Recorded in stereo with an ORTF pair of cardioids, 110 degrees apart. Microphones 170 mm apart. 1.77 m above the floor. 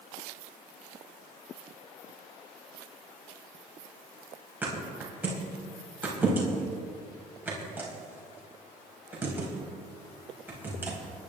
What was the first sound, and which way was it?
A thud, 10° right.